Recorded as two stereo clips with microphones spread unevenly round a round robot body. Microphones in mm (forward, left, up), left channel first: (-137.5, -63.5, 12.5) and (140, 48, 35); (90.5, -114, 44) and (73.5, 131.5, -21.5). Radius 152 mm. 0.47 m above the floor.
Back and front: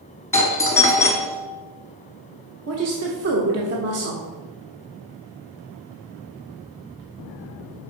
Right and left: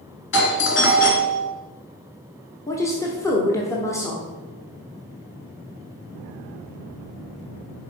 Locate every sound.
0.3 s a doorbell: 95° right, 1.2 m
2.7 s a woman speaking: 5° left, 1.0 m